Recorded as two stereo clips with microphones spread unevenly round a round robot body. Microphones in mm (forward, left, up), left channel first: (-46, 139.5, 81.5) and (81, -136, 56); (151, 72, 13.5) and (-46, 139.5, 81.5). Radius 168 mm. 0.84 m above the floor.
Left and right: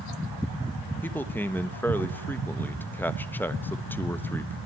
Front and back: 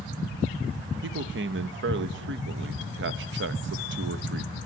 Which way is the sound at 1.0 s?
160° right.